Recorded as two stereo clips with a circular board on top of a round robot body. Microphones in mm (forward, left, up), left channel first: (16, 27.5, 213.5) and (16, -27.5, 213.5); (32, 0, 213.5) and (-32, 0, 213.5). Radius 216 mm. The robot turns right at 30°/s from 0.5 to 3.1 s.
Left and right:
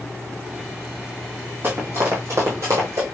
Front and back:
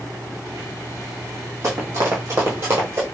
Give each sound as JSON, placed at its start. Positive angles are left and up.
{"t": 1.6, "sound": "running footsteps", "azimuth_deg": -140, "distance_m": 1.7}